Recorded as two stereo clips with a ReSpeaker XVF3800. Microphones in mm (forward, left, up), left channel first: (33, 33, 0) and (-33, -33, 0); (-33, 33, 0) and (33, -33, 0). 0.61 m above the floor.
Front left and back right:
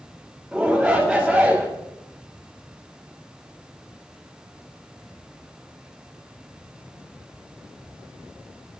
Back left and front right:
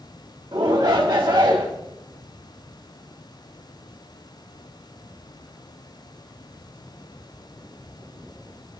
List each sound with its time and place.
0.5 s a shout: 55° right, 1.7 m